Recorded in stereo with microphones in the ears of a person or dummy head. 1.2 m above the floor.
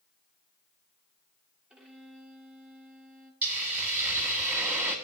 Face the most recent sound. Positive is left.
turn(degrees=-5)  # may be behind; listen again after turning